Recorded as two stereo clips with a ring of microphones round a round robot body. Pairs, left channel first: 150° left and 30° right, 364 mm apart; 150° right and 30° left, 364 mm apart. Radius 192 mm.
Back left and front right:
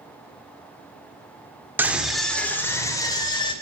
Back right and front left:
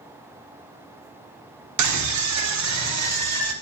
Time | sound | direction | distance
1.8 | a scream | 55° left | 1.8 m